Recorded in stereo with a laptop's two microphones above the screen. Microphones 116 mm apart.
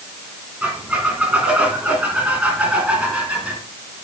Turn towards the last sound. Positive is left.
turn(degrees=-10)  # may be behind; listen again after turning